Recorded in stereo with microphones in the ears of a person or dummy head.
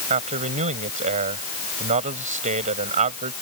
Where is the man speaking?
35° right (ahead or behind).